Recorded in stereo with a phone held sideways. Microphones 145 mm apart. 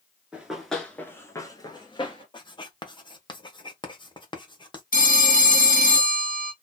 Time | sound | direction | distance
0.3 | running footsteps | 10° right (ahead or behind) | 1.5 m
2.3 | writing | 30° left (ahead or behind) | 0.9 m
4.9 | a phone ringing | 75° left (ahead or behind) | 1.2 m